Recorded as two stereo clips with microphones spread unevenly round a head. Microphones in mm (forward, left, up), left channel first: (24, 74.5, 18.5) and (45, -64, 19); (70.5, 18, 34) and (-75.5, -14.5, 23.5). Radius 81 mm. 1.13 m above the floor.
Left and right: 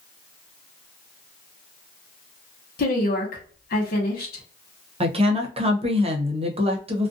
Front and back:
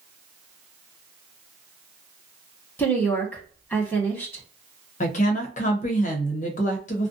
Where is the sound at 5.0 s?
30° right, 0.8 m.